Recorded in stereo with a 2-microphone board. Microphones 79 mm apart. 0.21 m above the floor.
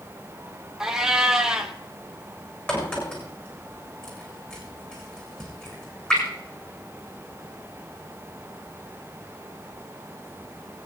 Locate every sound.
0.8 s a cat meowing: 5° right (ahead or behind), 1.3 m
2.7 s a crack: 15° left (ahead or behind), 7 m